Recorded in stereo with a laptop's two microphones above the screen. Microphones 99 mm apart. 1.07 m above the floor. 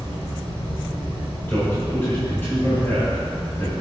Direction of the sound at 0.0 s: 85° left.